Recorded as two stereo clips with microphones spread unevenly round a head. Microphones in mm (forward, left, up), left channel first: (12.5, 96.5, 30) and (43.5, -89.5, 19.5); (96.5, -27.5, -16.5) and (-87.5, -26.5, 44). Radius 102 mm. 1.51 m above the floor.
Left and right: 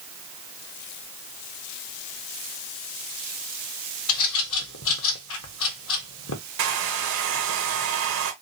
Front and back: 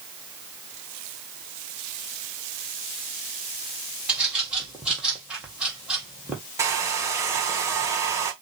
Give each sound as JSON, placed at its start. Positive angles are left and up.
{"t": 4.1, "sound": "a bird", "azimuth_deg": 95, "distance_m": 1.5}
{"t": 6.6, "sound": "a hair dryer", "azimuth_deg": -100, "distance_m": 1.5}